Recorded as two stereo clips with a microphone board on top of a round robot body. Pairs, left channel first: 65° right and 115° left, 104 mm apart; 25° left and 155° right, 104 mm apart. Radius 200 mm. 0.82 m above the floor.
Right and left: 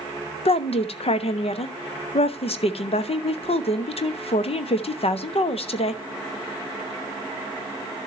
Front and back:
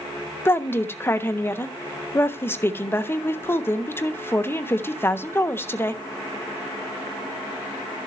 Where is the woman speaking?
45° right, 1.3 m.